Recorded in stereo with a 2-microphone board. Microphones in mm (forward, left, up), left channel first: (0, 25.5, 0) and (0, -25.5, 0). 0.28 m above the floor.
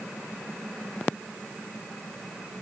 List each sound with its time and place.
Only background noise.